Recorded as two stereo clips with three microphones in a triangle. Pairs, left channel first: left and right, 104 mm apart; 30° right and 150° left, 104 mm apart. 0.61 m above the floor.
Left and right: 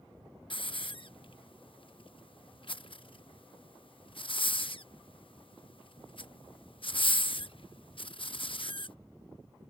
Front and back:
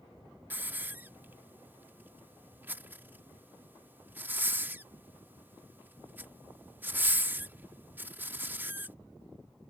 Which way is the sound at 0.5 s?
85° left.